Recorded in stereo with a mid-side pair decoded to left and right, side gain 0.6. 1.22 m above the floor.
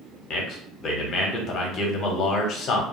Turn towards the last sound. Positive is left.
turn(degrees=50)